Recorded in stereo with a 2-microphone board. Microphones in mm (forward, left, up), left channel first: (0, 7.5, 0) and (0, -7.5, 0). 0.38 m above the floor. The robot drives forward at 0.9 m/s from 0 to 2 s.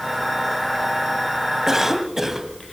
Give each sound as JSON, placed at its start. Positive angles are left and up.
{"t": 1.7, "sound": "a cough", "side_deg": -30, "distance_m": 2.0}